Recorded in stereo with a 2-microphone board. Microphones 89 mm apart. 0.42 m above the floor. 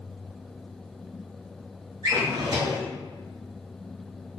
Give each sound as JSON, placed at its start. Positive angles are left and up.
{"t": 2.0, "sound": "a drawer", "side_deg": -50, "distance_m": 1.4}